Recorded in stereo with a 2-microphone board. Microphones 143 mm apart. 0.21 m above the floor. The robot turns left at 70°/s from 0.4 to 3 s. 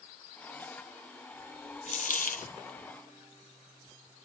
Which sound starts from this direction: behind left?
A dropped coin, at 1.9 s.